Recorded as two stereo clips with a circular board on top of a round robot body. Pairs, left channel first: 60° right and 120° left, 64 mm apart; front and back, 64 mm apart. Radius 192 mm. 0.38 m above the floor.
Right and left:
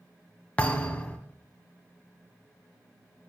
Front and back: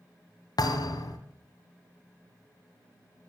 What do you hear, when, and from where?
0.6 s a thud: 10° left, 1.5 m